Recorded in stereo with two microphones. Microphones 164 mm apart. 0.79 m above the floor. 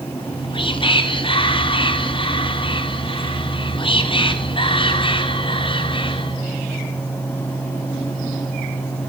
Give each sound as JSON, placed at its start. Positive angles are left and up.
{"t": 0.2, "sound": "whispering", "side_deg": 30, "distance_m": 0.8}